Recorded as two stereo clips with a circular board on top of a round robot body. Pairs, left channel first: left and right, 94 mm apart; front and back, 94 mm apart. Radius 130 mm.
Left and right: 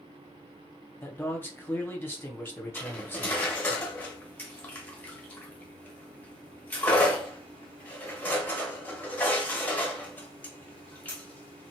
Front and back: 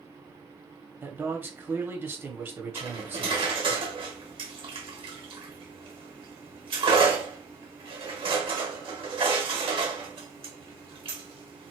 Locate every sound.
1.0 s a man speaking: 135° left, 1.1 m
2.8 s cutlery clinking: 160° left, 1.0 m